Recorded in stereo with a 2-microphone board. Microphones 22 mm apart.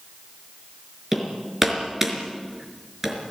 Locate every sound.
1.1 s hammering: 15° right (ahead or behind), 4.5 m